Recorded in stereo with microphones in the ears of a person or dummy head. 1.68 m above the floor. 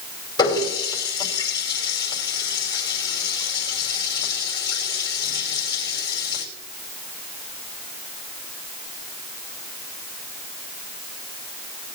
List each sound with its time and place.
0.4 s a running tap: 25° left (ahead or behind), 5 m